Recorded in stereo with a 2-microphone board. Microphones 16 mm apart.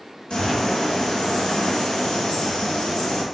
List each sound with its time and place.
0.3 s a bird: 75° left (ahead or behind), 1.1 m